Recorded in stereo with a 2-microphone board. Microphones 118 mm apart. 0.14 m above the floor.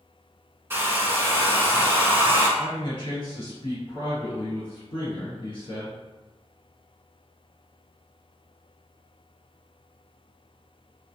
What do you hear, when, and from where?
0.7 s a hair dryer: 20° right (ahead or behind), 0.6 m
2.6 s a man speaking: 45° left (ahead or behind), 1.8 m